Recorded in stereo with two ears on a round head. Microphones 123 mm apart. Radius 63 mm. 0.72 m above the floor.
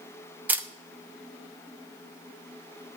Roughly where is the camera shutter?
Centre.